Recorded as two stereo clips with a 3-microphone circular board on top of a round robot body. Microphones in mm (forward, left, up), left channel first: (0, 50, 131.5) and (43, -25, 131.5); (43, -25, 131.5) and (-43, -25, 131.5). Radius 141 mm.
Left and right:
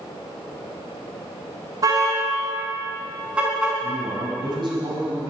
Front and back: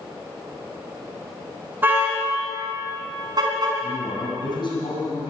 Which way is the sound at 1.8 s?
110° right.